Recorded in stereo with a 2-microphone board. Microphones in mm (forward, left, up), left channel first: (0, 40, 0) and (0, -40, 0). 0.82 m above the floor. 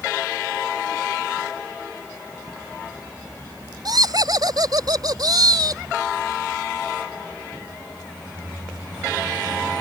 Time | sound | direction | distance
3.9 | laughter | 55° right (ahead or behind) | ?